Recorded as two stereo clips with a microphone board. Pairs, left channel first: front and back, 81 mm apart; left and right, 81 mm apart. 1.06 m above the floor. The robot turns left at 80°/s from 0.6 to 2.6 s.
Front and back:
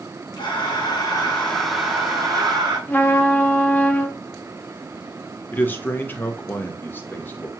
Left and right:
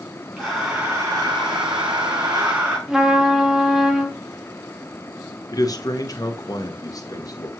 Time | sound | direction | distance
0.4 | breathing | straight ahead | 3.5 m
2.9 | a trumpet | 20° right | 0.7 m
5.5 | a man speaking | 60° left | 0.8 m